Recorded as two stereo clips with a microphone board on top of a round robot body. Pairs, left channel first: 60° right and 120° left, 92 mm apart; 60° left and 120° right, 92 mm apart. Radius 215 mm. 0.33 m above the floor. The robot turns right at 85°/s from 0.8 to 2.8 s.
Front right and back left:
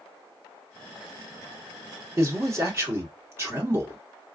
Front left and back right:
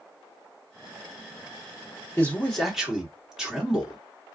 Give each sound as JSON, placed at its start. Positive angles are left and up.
{"t": 2.2, "sound": "a man speaking", "azimuth_deg": 105, "distance_m": 1.7}